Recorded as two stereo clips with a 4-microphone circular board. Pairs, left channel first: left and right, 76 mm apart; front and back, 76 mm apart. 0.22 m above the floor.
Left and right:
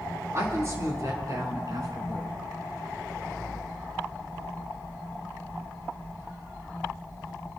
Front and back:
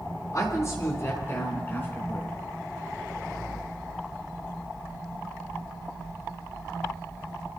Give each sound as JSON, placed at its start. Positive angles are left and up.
{"t": 0.3, "sound": "a woman speaking", "azimuth_deg": -40, "distance_m": 4.5}